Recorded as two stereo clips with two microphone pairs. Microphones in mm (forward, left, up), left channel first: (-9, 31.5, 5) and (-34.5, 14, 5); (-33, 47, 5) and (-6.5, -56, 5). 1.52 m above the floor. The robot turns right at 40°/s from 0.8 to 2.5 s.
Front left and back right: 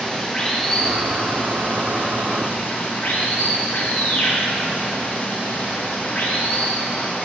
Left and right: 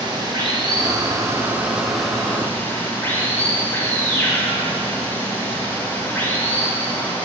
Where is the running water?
35° right, 1.0 m; by 7.2 s 35° left, 1.0 m.